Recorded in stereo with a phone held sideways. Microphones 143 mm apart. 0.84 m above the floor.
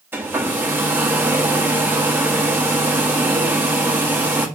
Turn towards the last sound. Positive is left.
turn(degrees=-15)  # may be behind; listen again after turning